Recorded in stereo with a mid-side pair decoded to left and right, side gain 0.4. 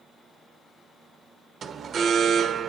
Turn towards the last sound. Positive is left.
turn(degrees=-55)